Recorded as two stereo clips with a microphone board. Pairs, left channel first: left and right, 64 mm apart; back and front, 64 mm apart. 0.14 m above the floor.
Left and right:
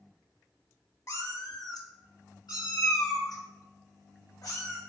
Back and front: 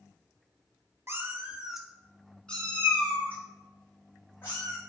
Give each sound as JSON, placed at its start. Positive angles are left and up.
{"t": 1.1, "sound": "a cat meowing", "azimuth_deg": 50, "distance_m": 0.5}